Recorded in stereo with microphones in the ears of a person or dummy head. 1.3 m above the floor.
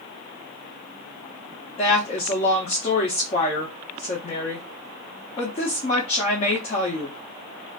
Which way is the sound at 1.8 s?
20° left (ahead or behind).